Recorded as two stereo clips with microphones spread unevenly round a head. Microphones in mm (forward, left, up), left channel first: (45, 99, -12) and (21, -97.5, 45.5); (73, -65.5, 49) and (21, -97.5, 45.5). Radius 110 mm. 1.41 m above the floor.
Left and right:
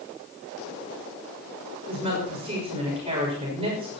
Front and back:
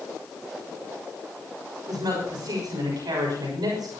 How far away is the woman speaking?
About 6 m.